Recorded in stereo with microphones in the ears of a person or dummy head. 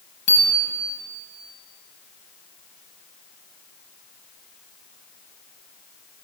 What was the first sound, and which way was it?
A bicycle bell, 30° left (ahead or behind).